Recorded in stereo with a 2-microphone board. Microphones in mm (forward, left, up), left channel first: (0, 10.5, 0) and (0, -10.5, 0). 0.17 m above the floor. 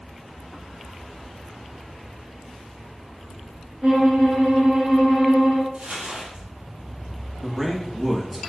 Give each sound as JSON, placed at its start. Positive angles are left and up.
{"t": 3.8, "sound": "a violin", "side_deg": -35, "distance_m": 1.6}
{"t": 5.7, "sound": "crumpling", "side_deg": -70, "distance_m": 1.7}
{"t": 7.4, "sound": "a man speaking", "side_deg": -10, "distance_m": 1.0}